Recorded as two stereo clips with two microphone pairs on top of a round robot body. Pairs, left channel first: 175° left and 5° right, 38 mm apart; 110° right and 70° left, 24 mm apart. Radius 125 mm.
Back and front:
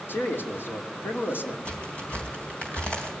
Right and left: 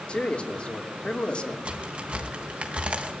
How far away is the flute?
No flute in this recording.